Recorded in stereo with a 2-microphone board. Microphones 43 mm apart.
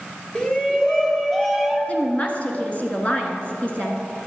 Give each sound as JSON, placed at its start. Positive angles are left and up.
{"t": 0.3, "sound": "a shout", "side_deg": 25, "distance_m": 1.9}
{"t": 1.9, "sound": "a woman speaking", "side_deg": 30, "distance_m": 1.8}